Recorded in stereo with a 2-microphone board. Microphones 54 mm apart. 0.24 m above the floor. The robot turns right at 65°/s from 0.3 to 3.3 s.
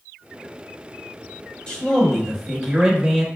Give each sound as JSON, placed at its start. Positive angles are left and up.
{"t": 1.7, "sound": "a man speaking", "side_deg": 20, "distance_m": 1.0}